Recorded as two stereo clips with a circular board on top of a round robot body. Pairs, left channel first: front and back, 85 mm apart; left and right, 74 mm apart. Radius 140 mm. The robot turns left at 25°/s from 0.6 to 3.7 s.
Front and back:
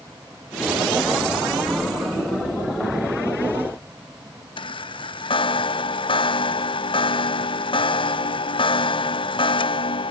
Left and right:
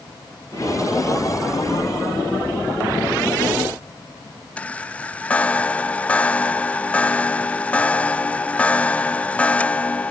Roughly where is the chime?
Ahead.